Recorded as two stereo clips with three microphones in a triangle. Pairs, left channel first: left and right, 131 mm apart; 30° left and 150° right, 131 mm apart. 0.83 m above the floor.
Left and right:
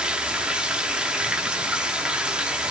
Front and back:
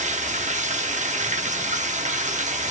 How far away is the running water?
About 0.9 m.